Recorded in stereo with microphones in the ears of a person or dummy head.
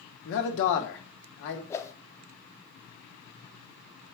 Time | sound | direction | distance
0.2 | a man speaking | 65° left (ahead or behind) | 1.5 m
1.7 | a whoosh | 10° left (ahead or behind) | 0.7 m